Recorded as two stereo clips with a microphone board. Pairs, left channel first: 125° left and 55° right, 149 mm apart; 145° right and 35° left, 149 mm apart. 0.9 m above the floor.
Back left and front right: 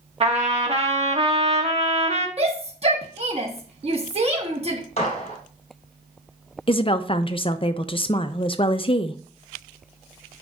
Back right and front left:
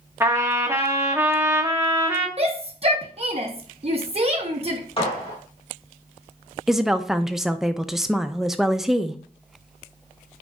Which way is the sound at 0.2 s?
35° right.